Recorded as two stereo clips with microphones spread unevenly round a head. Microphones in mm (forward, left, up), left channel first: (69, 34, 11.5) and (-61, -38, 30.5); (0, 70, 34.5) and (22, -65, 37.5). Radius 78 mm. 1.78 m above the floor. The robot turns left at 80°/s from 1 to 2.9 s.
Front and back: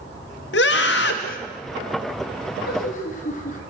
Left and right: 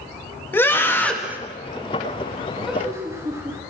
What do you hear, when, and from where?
0.5 s a scream: 25° left, 3.5 m; by 1.4 s 5° right, 3.5 m
2.7 s laughter: 10° left, 5 m; by 3.6 s 10° right, 5 m